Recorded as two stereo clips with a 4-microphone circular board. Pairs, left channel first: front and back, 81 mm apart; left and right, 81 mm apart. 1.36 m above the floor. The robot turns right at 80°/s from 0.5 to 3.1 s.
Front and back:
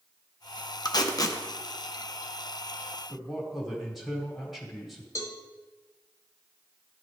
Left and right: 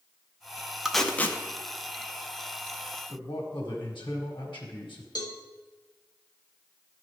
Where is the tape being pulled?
5° right, 0.5 m; by 1.4 s 40° left, 0.5 m.